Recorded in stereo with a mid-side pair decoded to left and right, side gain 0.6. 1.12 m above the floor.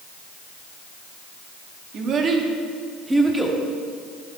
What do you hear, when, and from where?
1.9 s a child speaking: 50° right, 1.7 m; by 3.6 s 5° right, 2 m